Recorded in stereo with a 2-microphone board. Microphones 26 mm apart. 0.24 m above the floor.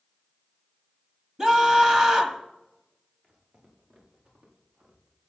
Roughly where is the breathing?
No breathing in this recording.